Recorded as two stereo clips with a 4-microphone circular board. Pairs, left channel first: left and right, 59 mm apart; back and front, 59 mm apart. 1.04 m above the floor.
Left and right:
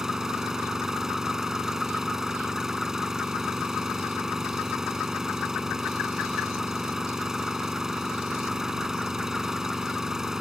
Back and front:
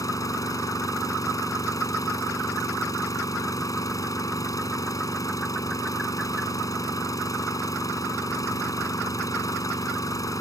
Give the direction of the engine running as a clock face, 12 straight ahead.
6 o'clock.